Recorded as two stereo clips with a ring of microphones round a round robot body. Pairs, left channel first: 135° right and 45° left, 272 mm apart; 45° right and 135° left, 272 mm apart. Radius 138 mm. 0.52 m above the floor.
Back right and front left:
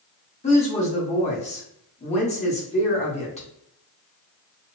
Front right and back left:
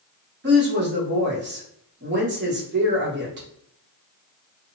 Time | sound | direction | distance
0.4 | a woman speaking | 165° left | 1.2 m